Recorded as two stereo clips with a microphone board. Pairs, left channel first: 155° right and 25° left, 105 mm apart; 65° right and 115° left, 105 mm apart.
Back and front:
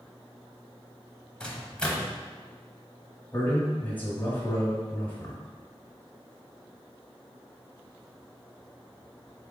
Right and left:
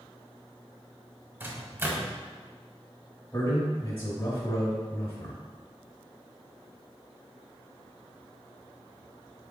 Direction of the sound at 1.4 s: 140° left.